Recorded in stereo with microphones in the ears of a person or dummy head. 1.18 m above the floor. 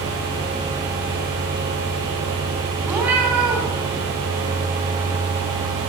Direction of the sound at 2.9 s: 10° right (ahead or behind).